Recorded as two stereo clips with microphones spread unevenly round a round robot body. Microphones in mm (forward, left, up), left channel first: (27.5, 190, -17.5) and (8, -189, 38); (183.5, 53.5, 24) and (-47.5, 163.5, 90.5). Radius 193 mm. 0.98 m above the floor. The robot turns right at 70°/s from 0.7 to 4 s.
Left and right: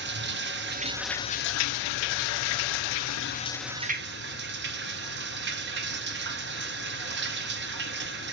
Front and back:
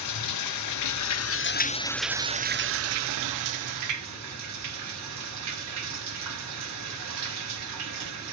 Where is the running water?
30° right, 0.7 m; by 8.3 s 160° right, 0.7 m.